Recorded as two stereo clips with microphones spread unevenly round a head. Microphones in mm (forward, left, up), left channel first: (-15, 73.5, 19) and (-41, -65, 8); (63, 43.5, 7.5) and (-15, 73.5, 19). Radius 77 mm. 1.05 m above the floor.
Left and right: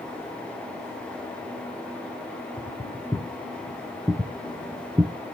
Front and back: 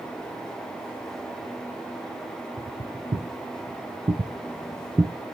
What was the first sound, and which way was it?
Footsteps, 165° left.